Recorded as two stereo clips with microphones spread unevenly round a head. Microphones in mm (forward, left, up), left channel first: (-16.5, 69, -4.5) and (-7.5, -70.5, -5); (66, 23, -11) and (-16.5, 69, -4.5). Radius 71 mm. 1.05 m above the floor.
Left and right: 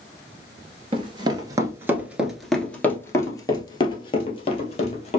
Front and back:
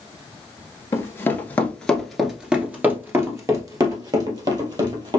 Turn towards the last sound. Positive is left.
turn(degrees=130)